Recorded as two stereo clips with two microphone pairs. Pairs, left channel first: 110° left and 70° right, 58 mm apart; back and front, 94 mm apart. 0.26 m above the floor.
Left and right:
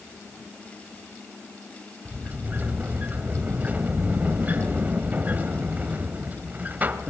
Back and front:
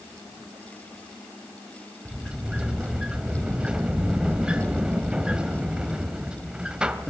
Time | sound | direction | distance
2.0 | a sliding door | 70° right | 1.1 m